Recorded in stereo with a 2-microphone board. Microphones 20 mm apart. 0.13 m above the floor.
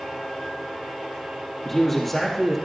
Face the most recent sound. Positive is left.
turn(degrees=15)  # may be behind; listen again after turning